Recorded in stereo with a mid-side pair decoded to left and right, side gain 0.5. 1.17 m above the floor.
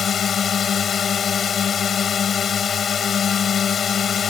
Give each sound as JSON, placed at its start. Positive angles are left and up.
{"t": 0.0, "sound": "a drone", "azimuth_deg": 45}